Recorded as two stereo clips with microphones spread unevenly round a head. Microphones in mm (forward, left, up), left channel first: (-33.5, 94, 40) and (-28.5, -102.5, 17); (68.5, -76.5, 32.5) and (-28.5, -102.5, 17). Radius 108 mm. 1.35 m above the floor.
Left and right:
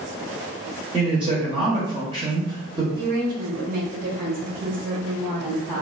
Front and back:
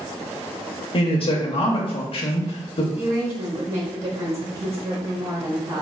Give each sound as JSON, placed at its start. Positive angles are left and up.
{"t": 0.9, "sound": "a man speaking", "azimuth_deg": -20, "distance_m": 0.7}
{"t": 3.0, "sound": "a woman speaking", "azimuth_deg": -135, "distance_m": 1.8}